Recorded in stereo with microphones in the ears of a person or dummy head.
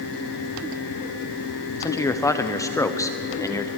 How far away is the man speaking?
About 1.0 m.